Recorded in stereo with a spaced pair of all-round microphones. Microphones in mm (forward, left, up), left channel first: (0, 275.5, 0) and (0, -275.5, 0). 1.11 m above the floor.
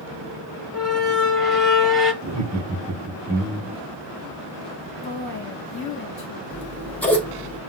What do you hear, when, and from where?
0.7 s a squeak: 65° left (ahead or behind), 1.1 m
2.2 s laughter: 30° right (ahead or behind), 0.7 m
5.0 s a woman speaking: 40° left (ahead or behind), 1.4 m
6.5 s scissors: 5° left (ahead or behind), 0.7 m